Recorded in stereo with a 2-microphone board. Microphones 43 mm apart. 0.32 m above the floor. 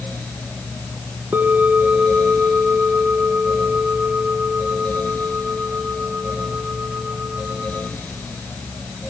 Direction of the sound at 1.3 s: 50° right (ahead or behind).